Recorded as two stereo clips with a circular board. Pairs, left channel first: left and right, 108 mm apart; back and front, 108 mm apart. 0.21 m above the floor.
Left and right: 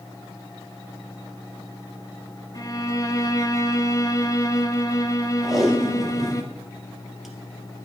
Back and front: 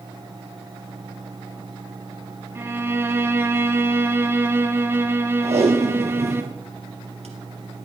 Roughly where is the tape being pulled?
Ahead.